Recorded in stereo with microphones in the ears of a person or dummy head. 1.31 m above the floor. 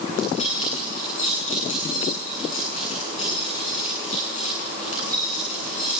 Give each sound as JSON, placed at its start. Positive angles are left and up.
{"t": 0.1, "sound": "keys jangling", "side_deg": 40, "distance_m": 9.0}